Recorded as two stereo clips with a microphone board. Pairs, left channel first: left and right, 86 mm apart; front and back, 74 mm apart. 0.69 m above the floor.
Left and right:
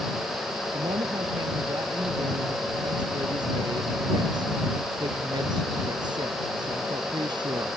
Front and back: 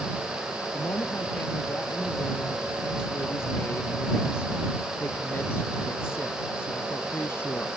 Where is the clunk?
No clunk in this recording.